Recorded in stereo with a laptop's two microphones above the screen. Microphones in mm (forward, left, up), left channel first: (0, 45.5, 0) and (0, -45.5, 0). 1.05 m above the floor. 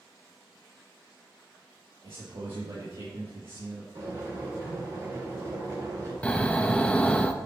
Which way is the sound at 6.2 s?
15° left (ahead or behind).